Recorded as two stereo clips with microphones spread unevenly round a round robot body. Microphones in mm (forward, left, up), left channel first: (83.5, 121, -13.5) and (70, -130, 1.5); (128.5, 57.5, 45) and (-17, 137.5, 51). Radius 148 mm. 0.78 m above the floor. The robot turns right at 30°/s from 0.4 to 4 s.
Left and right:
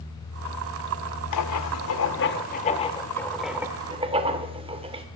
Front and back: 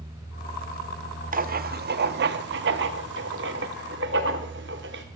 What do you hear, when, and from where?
1.3 s writing: 115° left, 0.7 m; by 5.0 s 165° right, 0.7 m